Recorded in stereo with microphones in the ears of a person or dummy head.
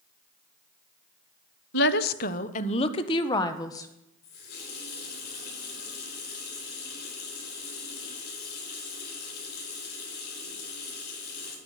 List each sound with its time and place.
1.7 s a woman speaking: 65° left (ahead or behind), 0.7 m; by 3.9 s 15° left (ahead or behind), 1.4 m
4.2 s a running tap: 60° left (ahead or behind), 4.5 m